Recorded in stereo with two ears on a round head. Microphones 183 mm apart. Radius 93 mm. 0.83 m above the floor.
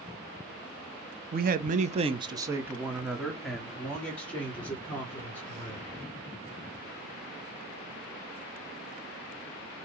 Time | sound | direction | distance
1.3 | a man speaking | 45° right (ahead or behind) | 0.6 m